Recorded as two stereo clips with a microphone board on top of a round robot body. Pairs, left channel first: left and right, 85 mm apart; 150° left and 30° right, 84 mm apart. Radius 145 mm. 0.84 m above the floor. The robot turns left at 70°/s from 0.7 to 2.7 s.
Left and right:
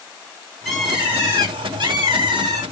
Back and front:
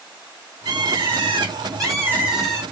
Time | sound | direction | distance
0.7 | a bird | 5° left | 2.5 m